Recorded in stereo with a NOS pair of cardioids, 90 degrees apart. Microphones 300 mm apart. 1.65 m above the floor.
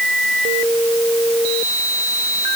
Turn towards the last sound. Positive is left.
No sound to turn to.